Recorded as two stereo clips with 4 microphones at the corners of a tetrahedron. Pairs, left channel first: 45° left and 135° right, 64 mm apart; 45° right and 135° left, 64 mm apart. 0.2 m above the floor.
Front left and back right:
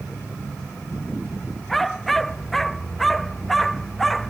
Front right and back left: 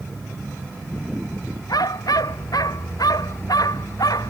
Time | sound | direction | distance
1.7 | a dog barking | 40° right | ?